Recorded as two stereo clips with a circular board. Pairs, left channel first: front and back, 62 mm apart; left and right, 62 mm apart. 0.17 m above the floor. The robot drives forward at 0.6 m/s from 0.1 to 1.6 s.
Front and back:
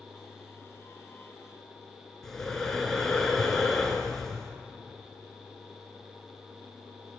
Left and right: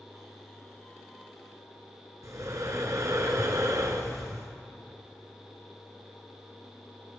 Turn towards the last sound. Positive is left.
turn(degrees=-80)